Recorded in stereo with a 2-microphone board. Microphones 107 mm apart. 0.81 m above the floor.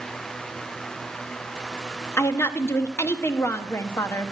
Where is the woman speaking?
25° left (ahead or behind), 0.8 m.